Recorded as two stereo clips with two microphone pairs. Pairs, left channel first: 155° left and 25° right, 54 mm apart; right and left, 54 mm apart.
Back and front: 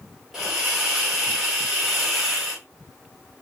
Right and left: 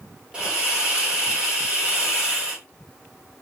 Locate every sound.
0.3 s a hiss: 45° left, 1.3 m